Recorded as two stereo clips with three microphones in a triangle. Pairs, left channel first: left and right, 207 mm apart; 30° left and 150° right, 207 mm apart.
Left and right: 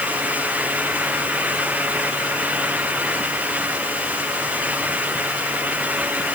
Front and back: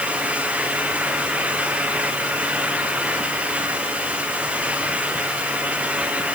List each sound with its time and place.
Only background noise.